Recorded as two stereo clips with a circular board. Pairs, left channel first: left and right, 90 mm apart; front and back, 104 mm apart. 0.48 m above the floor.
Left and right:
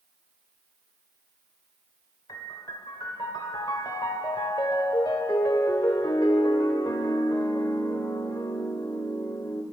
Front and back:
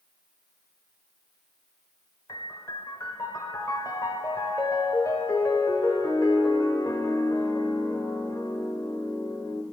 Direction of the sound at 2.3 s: 55° left.